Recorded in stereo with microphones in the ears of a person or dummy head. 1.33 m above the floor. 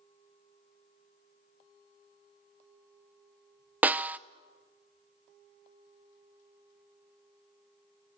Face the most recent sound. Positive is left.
turn(degrees=-10)  # may be behind; listen again after turning